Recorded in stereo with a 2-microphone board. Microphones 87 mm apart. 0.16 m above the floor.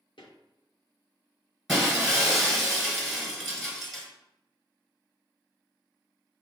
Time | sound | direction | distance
0.2 | footsteps | 80° left | 1.6 m
1.7 | breaking glass | 5° right (ahead or behind) | 1.2 m